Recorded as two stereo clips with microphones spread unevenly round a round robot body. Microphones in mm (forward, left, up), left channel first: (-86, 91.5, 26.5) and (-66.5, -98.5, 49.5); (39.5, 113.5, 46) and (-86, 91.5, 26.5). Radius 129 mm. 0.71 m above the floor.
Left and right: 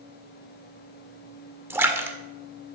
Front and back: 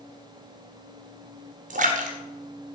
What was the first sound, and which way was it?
A splash, 165° right.